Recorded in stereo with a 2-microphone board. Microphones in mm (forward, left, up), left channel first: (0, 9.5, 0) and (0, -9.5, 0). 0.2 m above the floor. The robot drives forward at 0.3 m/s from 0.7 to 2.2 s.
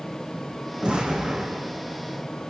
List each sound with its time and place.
0.8 s an explosion: 60° right (ahead or behind), 10 m